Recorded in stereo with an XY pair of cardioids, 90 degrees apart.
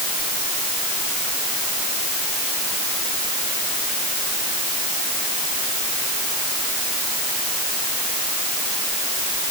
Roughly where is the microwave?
No microwave in this recording.